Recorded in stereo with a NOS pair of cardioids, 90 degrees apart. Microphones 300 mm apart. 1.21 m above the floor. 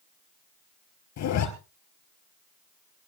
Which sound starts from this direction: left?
A zipper, at 1.2 s.